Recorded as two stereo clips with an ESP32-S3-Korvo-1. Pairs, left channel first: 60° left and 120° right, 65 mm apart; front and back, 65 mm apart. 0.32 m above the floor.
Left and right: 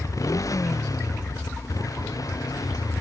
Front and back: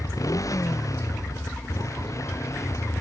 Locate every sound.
0.0 s a motorcycle: 30° left; by 3.0 s 40° left